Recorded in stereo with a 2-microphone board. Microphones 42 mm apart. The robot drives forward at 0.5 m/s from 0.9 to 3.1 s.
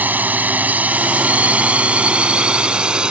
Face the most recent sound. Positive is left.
turn(degrees=-25)  # may be behind; listen again after turning